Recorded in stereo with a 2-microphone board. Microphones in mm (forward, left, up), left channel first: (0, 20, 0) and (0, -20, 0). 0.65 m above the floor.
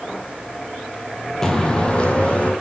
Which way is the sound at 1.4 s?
15° left (ahead or behind).